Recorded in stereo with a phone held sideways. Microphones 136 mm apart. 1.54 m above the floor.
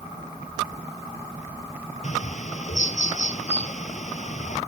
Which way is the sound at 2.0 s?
60° left (ahead or behind).